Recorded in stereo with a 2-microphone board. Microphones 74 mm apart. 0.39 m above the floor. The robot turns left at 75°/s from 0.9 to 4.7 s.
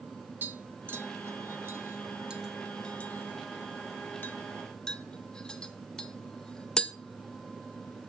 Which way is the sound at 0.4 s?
30° right (ahead or behind).